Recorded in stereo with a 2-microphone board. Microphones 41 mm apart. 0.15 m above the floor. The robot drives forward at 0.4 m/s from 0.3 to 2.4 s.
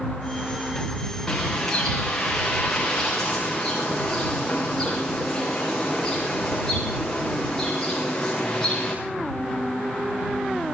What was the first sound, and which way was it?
A bird, 10° left (ahead or behind).